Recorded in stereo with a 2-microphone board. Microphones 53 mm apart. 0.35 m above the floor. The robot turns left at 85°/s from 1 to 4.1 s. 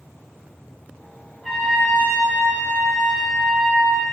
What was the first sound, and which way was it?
A trumpet, 175° right.